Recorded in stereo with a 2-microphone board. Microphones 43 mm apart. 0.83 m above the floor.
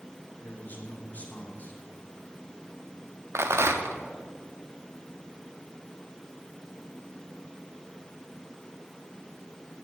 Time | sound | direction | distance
0.4 | a man speaking | 40° left (ahead or behind) | 2 m
3.4 | a rattle | 80° right | 0.8 m